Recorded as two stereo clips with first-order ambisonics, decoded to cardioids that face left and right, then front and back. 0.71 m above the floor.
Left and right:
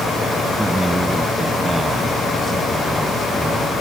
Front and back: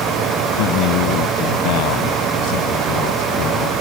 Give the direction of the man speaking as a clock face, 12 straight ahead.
12 o'clock.